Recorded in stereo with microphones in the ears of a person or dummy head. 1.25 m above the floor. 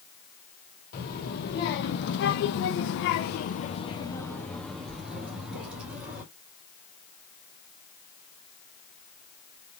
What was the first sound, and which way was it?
A child speaking, 50° left (ahead or behind).